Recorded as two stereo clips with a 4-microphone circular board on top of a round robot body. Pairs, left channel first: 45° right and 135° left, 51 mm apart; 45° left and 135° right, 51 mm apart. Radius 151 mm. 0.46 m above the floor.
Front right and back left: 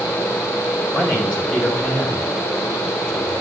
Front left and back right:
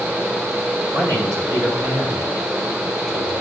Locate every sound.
0.9 s a man speaking: 125° right, 6.5 m; by 3.4 s 105° right, 5 m